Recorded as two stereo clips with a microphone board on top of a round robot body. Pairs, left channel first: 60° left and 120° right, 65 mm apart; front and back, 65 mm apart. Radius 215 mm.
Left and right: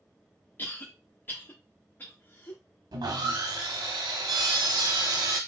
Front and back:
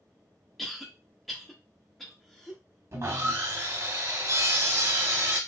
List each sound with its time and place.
0.6 s a cough: 85° left, 1.1 m
2.9 s sawing: 135° right, 0.7 m